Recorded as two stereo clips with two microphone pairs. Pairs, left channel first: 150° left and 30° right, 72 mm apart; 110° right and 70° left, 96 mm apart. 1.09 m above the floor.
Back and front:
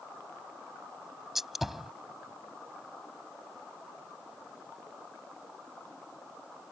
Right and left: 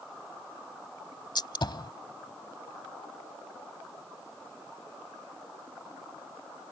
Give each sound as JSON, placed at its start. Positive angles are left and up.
{"t": 1.4, "sound": "a gunshot", "azimuth_deg": -115}